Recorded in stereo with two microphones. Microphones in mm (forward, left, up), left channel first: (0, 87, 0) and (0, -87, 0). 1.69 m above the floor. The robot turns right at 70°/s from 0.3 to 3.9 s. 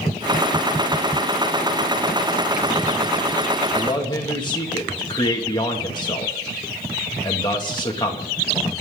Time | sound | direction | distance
3.7 | a man speaking | 10° left (ahead or behind) | 2.5 m